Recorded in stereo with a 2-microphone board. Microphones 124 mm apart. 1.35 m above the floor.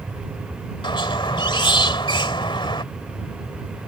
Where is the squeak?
45° left (ahead or behind).